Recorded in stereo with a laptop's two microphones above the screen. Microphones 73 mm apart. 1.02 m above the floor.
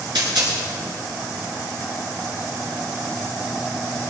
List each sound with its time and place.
0.1 s a dropped coin: 85° right, 7 m